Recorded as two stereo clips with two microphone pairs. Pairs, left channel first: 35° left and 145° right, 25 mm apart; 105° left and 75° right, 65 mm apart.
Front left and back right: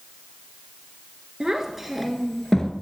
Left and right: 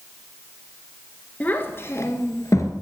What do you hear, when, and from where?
1.4 s a child speaking: 160° left, 1.5 m; by 2.7 s 95° left, 1.8 m